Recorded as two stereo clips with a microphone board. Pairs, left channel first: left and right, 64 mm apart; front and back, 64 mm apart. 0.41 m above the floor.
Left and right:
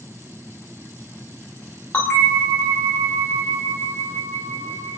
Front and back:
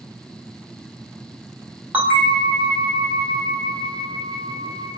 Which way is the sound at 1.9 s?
135° left.